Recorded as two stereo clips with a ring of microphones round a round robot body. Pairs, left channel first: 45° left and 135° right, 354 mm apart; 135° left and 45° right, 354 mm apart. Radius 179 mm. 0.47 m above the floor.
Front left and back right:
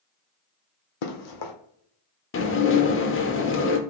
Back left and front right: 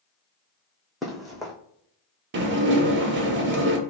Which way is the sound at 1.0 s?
45° left.